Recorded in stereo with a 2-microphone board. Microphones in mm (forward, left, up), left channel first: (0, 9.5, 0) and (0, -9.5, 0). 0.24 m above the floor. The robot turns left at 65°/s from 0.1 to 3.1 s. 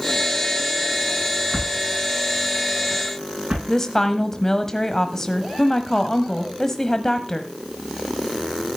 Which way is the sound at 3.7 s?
25° left (ahead or behind).